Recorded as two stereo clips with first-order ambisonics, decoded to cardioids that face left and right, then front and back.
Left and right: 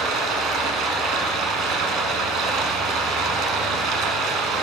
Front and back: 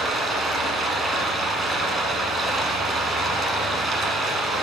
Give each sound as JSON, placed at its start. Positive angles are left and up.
{"t": 0.0, "sound": "running water", "azimuth_deg": -115, "distance_m": 0.7}